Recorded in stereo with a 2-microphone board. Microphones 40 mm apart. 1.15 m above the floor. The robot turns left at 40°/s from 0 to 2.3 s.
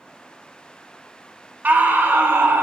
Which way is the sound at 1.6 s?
50° right (ahead or behind).